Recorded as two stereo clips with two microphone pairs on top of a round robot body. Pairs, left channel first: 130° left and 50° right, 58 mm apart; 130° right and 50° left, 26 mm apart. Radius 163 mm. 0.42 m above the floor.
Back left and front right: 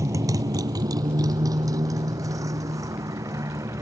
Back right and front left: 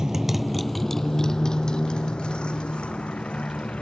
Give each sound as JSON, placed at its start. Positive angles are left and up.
{"t": 0.0, "sound": "a motorcycle", "azimuth_deg": -20}